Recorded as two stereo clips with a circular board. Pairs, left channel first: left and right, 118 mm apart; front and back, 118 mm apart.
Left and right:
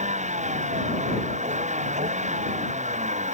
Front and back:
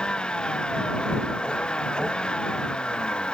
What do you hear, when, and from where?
0.0 s a vehicle: 85° right